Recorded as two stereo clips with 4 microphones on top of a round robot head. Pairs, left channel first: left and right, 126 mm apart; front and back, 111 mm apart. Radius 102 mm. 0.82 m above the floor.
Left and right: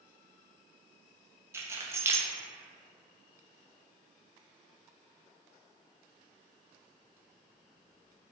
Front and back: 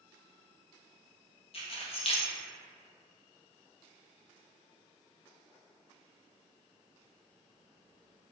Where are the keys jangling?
20° right, 0.6 m.